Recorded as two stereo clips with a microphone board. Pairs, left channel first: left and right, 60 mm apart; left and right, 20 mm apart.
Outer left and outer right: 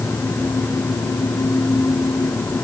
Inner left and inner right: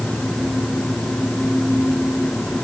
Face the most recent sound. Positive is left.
No sound to turn to.